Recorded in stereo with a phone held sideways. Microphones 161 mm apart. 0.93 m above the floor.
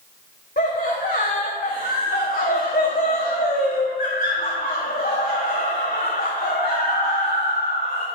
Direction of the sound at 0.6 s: 75° left (ahead or behind).